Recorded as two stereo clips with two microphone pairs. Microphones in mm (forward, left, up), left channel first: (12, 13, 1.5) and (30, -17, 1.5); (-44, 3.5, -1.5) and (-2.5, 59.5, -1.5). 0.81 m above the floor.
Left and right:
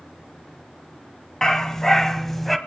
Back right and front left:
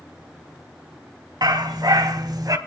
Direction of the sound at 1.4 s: 45° left.